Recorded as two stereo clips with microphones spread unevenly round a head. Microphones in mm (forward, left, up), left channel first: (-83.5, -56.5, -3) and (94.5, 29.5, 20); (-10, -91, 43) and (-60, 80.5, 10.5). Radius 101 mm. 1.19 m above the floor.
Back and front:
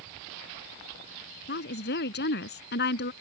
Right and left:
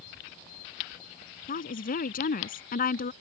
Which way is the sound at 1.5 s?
115° right.